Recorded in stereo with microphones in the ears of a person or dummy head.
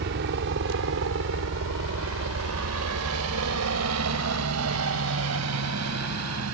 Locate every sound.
0.0 s a helicopter: 55° right (ahead or behind); by 6.5 s 80° right